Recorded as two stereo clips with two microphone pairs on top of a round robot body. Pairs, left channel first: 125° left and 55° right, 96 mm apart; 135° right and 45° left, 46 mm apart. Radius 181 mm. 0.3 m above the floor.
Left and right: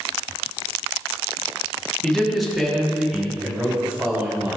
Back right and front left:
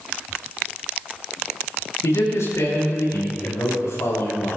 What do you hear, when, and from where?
2.0 s a man speaking: 145° right, 4.5 m; by 4.6 s 125° right, 5.5 m